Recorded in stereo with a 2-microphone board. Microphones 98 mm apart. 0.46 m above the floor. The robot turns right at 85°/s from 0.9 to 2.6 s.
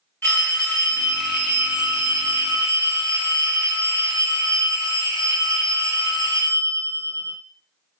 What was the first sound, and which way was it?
A phone ringing, 150° left.